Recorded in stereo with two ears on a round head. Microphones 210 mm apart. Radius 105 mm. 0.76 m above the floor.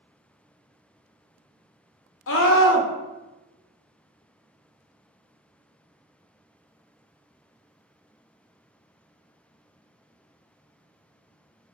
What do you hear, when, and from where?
2.3 s a scream: 55° left (ahead or behind), 0.7 m